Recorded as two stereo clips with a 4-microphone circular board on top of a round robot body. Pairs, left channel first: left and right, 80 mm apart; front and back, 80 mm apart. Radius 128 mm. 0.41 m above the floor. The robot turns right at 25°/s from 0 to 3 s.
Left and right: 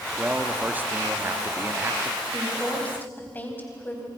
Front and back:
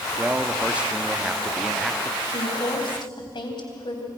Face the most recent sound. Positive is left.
turn(degrees=20)